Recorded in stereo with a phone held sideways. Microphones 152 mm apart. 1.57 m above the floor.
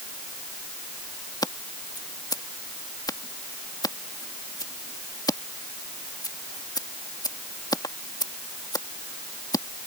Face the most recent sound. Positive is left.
turn(degrees=25)  # may be behind; listen again after turning